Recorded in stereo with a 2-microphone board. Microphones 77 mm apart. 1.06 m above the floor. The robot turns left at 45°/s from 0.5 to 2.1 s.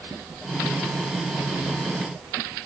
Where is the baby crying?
No baby crying in this recording.